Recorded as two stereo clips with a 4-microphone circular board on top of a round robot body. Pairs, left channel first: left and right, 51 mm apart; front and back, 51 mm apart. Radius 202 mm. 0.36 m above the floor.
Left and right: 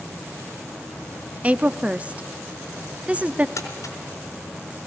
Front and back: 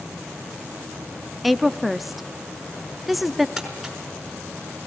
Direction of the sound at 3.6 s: 95° left.